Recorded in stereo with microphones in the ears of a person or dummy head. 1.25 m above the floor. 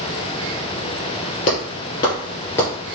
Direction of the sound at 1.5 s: 40° left (ahead or behind).